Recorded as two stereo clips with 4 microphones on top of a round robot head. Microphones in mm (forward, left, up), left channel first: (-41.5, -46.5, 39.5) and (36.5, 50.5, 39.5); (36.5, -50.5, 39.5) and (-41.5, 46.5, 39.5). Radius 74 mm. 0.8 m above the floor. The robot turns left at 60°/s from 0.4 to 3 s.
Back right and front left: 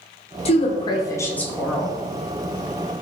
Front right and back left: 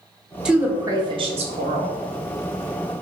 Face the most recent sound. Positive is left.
turn(degrees=60)